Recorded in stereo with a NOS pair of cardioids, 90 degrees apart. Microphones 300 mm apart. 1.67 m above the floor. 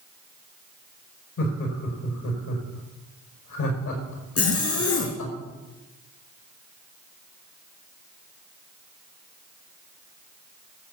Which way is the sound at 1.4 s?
65° left.